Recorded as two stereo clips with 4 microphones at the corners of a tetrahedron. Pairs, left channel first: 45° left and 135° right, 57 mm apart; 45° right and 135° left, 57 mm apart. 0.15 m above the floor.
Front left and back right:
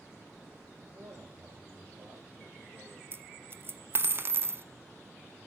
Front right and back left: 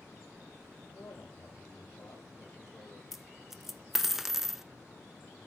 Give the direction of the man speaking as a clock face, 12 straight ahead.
4 o'clock.